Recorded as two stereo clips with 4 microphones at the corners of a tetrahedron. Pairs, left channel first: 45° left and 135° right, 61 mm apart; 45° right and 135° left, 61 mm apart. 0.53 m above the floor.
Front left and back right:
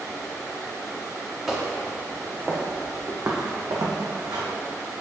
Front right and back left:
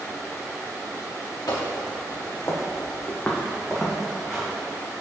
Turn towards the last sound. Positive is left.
turn(degrees=-140)